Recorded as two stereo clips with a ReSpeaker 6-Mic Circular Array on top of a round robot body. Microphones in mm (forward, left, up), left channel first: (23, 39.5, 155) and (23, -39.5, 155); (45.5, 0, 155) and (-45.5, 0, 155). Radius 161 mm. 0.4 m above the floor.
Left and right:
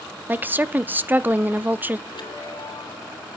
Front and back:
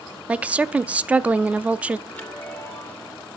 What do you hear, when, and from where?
0.3 s a woman speaking: 120° right, 0.8 m
2.1 s a chime: 75° left, 2.5 m